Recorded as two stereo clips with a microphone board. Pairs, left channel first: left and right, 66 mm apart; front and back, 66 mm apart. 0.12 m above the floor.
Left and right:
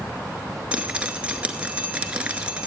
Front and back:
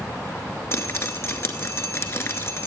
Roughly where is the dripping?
Ahead right.